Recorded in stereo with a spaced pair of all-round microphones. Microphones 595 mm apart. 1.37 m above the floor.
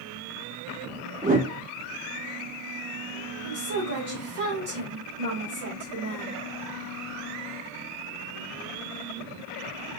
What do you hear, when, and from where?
1.2 s a whoosh: 15° right (ahead or behind), 1.5 m
3.4 s a woman speaking: 90° right, 2 m